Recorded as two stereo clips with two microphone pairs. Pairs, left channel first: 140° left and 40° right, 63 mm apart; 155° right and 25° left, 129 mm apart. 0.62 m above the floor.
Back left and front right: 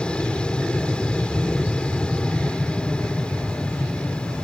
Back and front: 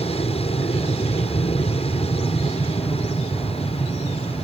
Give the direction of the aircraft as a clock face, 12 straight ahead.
5 o'clock.